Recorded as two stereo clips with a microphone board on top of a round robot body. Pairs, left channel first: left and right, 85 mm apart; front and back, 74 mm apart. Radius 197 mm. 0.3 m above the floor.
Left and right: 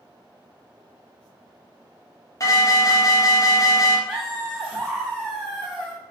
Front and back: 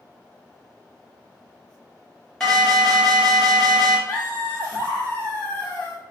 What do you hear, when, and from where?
2.4 s an alarm: 80° left, 1.3 m
4.1 s laughter: straight ahead, 1.4 m